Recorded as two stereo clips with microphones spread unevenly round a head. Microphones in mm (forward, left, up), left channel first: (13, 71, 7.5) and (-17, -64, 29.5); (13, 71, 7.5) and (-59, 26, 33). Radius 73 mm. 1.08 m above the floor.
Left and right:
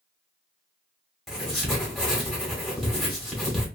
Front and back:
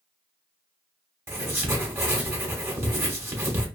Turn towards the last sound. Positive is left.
turn(degrees=175)